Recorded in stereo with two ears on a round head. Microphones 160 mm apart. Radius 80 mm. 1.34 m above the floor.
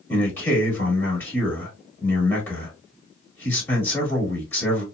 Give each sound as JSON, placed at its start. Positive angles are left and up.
{"t": 0.1, "sound": "a man speaking", "side_deg": 15, "distance_m": 1.6}